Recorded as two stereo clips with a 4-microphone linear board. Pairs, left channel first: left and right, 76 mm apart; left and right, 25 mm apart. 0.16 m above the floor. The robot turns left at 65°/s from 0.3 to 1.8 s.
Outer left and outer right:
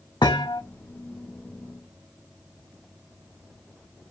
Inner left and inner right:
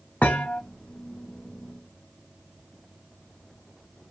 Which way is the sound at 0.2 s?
80° left.